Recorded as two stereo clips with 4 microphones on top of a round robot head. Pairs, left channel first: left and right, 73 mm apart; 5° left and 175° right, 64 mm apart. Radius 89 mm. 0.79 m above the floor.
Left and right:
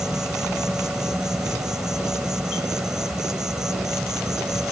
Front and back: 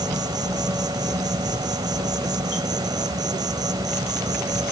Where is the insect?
175° right.